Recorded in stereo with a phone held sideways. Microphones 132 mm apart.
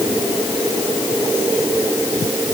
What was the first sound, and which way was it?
Only background noise.